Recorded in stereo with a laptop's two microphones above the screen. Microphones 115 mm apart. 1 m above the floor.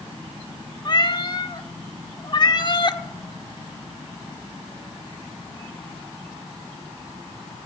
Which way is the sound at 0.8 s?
40° left (ahead or behind).